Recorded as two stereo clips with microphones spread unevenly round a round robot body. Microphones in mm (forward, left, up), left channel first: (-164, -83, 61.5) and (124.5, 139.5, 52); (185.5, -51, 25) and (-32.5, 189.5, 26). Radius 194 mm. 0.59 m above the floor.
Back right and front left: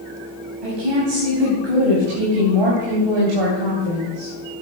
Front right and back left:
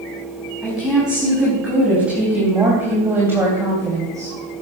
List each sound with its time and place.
0.6 s a woman speaking: 45° left, 4.5 m; by 4.3 s 50° left, 3 m